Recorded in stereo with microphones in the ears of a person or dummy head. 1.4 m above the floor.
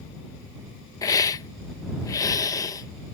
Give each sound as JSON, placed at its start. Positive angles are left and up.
{"t": 1.0, "sound": "a hiss", "side_deg": 20}